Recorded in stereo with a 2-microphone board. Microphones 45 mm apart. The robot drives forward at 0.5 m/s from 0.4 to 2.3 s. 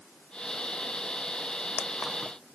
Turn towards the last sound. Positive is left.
No sound to turn to.